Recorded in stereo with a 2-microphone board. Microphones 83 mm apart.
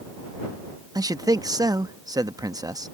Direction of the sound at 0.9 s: 50° right (ahead or behind).